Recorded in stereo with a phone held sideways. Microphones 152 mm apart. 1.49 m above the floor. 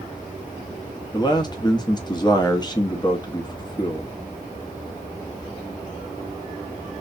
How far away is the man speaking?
About 1.2 m.